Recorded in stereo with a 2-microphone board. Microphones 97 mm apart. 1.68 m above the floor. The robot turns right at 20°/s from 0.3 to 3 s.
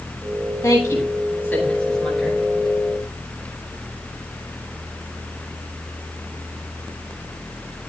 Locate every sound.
0.6 s a woman speaking: 35° left (ahead or behind), 9.5 m; by 2.4 s centre (ahead or behind), 9.5 m